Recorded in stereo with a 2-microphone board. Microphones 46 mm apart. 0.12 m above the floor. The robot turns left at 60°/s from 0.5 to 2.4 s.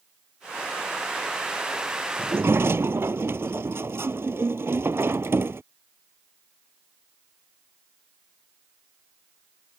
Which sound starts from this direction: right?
A sliding door, at 2.2 s.